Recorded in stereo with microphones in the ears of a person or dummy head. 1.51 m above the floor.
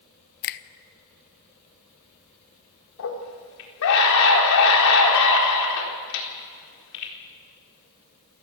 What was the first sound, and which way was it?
A finger snap, 55° left (ahead or behind).